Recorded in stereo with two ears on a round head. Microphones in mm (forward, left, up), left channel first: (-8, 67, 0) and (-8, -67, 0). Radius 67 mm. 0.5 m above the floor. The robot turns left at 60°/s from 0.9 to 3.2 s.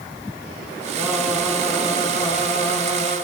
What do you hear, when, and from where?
1.0 s singing: 160° right, 4.5 m; by 3.1 s 70° left, 4.5 m